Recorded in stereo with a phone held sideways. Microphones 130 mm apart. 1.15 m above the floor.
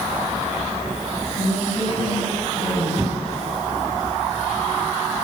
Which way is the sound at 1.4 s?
80° left.